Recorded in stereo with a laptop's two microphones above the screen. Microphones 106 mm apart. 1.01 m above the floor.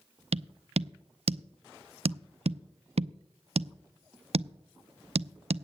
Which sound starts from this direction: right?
Tapping, at 0.3 s.